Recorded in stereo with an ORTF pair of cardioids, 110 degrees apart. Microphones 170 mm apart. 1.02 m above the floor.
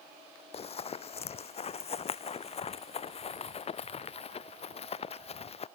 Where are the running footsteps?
40° left; by 5.7 s 35° left.